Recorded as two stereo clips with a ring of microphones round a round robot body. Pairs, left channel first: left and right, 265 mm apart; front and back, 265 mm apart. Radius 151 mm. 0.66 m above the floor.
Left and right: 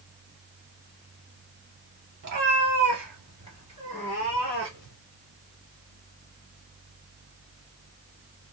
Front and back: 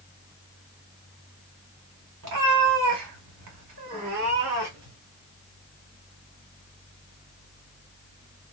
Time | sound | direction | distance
2.2 | a cat meowing | 145° right | 0.8 m